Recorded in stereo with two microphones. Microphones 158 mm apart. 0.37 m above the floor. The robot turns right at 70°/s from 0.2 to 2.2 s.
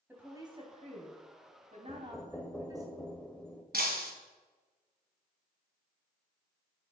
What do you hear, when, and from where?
0.1 s a woman speaking: 165° right, 2.5 m; by 2.9 s 25° right, 2.5 m
1.9 s knocking: 10° right (ahead or behind), 0.9 m; by 3.6 s 5° left (ahead or behind), 0.9 m
3.7 s breaking glass: 75° right (ahead or behind), 1.8 m